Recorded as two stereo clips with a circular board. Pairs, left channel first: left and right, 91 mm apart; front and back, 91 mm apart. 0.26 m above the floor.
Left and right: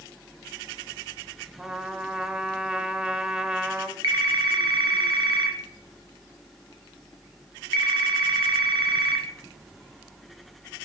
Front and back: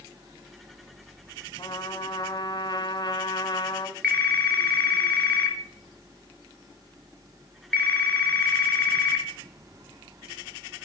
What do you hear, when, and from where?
1.6 s a trumpet: 15° right, 1.2 m
4.0 s a phone ringing: 70° right, 3.5 m